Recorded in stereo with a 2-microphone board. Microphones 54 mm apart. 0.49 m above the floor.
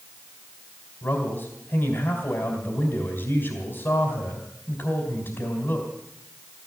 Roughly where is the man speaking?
Left.